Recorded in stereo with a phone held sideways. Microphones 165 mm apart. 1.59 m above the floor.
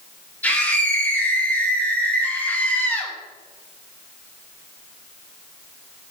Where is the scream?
10° left (ahead or behind), 1.4 m.